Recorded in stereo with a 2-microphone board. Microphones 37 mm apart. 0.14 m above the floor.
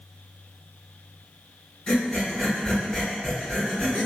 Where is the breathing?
20° left (ahead or behind), 1.6 m.